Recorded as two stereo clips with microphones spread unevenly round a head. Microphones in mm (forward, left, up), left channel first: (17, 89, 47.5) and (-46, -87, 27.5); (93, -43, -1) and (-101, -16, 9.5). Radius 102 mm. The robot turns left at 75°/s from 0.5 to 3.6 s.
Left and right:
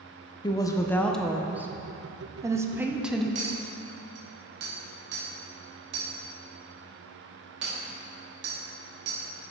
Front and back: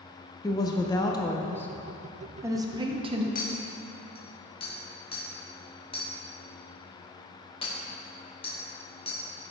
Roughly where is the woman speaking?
Ahead.